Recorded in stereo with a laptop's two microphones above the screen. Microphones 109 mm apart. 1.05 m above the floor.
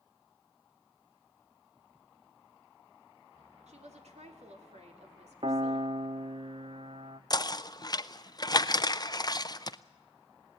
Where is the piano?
55° right (ahead or behind), 0.9 m.